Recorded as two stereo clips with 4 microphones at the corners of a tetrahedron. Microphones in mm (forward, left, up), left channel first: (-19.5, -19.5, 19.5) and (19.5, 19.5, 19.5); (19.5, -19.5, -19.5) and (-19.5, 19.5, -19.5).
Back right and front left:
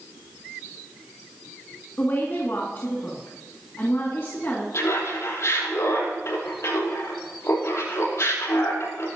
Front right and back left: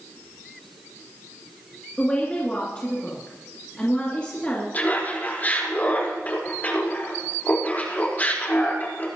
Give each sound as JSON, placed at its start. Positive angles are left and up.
{"t": 2.0, "sound": "a woman speaking", "azimuth_deg": -105, "distance_m": 2.0}
{"t": 4.7, "sound": "laughter", "azimuth_deg": -105, "distance_m": 5.0}